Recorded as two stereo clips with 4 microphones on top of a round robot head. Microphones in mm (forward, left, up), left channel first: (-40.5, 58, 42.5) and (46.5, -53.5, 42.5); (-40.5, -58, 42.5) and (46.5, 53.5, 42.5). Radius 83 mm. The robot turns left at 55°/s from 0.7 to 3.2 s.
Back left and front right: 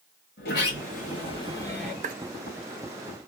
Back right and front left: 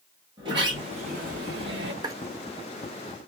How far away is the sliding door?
About 1.9 m.